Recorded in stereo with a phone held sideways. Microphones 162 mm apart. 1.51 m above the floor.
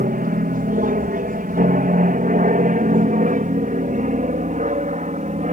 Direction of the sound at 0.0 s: 60° right (ahead or behind).